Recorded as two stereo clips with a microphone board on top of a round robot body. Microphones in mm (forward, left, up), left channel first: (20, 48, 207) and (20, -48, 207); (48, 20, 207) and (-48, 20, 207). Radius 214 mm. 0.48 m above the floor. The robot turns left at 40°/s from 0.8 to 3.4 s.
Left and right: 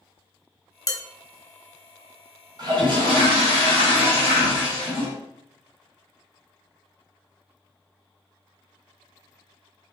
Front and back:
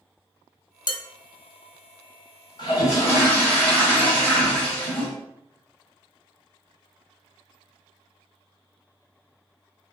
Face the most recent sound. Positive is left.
turn(degrees=-80)